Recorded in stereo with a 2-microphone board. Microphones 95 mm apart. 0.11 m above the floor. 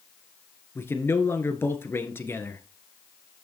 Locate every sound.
0.8 s a man speaking: 25° left (ahead or behind), 1.5 m